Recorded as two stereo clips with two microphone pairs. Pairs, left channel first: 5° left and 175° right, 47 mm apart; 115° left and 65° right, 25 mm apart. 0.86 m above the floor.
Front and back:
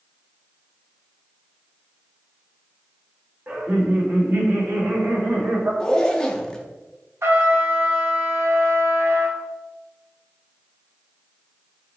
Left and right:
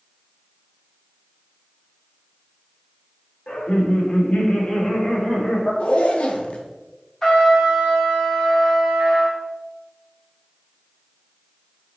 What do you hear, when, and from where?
3.5 s laughter: 125° left, 1.4 m; by 5.7 s 160° left, 2 m
5.8 s a zipper: 80° left, 0.6 m
7.2 s a trumpet: 175° right, 1.1 m